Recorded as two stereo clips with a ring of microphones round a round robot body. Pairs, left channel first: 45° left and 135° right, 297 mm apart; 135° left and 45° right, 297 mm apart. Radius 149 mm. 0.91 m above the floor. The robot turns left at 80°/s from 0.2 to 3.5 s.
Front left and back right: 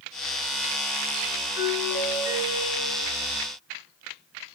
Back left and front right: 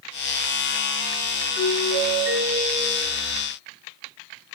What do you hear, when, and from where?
1.6 s a doorbell: 30° right, 4.5 m; by 3.2 s 160° right, 4.5 m